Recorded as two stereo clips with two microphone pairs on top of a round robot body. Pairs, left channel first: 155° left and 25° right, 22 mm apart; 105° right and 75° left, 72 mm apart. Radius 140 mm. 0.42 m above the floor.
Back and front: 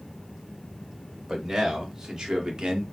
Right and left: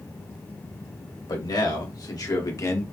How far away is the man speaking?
About 2.5 m.